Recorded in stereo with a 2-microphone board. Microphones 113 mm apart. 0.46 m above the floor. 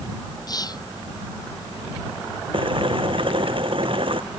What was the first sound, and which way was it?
Whispering, 35° left (ahead or behind).